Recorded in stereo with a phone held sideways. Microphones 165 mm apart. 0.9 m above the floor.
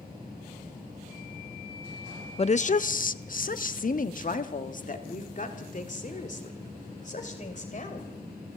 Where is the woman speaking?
40° left (ahead or behind), 0.5 m; by 8.1 s 50° left (ahead or behind), 4 m.